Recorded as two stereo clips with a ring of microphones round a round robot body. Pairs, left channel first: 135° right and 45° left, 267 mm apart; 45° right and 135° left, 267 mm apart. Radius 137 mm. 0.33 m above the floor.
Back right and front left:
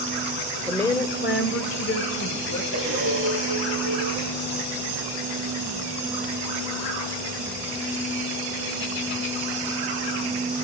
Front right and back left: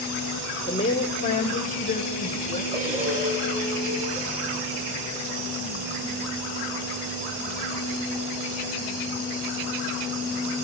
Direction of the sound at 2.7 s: 75° left.